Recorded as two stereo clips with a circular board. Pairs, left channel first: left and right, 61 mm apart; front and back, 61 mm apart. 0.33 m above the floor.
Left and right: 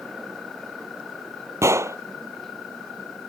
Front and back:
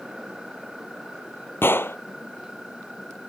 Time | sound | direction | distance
1.6 | a gunshot | 50° right | ?